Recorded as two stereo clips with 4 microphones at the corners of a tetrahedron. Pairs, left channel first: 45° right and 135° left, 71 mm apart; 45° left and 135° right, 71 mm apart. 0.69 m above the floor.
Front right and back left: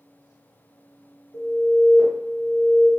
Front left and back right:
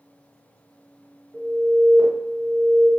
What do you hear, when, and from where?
1.3 s an alarm: 40° right, 1.1 m